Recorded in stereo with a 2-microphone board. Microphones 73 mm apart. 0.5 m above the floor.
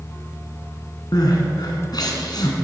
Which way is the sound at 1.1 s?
70° left (ahead or behind).